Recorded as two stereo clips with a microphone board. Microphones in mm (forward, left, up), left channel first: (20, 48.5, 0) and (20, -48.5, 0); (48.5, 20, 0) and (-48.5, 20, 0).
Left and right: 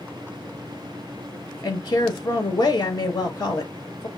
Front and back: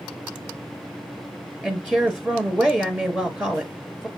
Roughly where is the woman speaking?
Left.